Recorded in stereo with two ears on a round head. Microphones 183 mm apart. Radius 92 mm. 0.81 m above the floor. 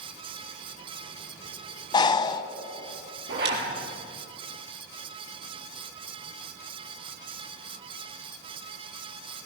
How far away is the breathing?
About 1.1 m.